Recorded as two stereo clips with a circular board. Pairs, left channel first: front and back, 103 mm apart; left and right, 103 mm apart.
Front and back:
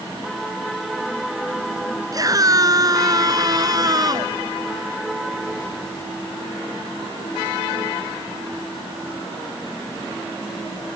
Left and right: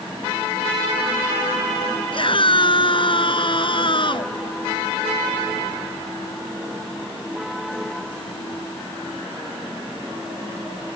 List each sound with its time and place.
2.1 s a scream: 125° left; by 4.3 s 130° left